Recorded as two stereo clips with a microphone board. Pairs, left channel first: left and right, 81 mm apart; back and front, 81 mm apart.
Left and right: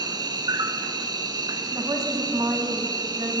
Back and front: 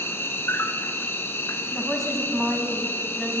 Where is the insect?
120° right, 0.8 m.